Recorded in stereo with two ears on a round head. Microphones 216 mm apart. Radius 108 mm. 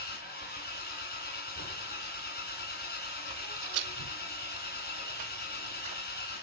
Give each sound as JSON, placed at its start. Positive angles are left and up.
{"t": 0.0, "sound": "an engine running", "side_deg": 40, "distance_m": 2.0}
{"t": 3.3, "sound": "footsteps", "side_deg": -20, "distance_m": 0.8}